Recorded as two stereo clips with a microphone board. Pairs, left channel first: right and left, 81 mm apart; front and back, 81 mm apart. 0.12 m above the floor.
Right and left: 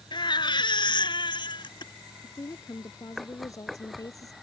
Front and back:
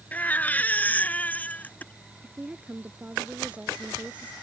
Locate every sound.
0.1 s a baby crying: 70° right
2.2 s a woman speaking: 110° right